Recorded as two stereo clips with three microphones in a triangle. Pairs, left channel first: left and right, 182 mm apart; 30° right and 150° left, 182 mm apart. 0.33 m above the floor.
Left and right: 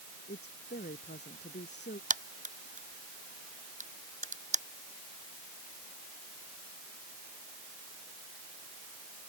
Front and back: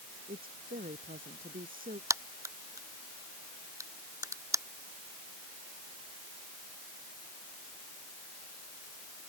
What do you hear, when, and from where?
0.3 s a woman speaking: 115° left; by 2.0 s 110° left
2.1 s a crack: 135° right